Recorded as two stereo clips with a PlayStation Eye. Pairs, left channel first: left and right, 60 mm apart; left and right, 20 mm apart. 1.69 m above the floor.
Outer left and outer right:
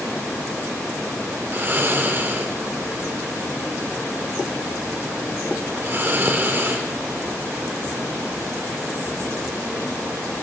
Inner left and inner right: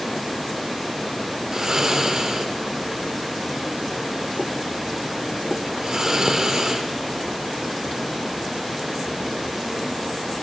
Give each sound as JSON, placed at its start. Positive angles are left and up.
{"t": 1.5, "sound": "snoring", "side_deg": -35, "distance_m": 0.6}